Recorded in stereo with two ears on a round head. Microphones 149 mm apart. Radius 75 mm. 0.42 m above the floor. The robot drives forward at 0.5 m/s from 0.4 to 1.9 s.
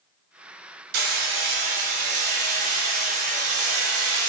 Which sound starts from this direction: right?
Hammering, at 0.9 s.